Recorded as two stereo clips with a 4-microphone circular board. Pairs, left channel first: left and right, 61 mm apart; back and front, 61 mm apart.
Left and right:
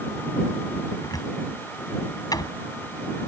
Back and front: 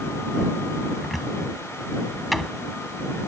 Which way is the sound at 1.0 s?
90° left.